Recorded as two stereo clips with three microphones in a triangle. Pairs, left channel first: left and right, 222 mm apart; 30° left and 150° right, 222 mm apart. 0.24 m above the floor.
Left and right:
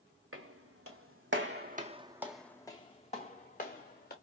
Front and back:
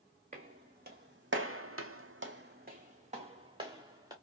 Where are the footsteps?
95° right, 1.3 m; by 4.1 s 140° left, 1.7 m.